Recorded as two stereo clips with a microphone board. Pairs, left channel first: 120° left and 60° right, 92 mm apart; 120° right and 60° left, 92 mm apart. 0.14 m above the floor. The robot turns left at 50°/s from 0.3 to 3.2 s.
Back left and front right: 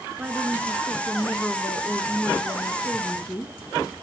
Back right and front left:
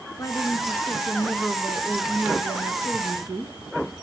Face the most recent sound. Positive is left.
turn(degrees=80)